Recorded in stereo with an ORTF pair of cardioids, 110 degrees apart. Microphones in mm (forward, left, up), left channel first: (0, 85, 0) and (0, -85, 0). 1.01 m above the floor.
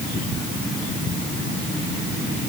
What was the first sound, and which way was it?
Only background noise.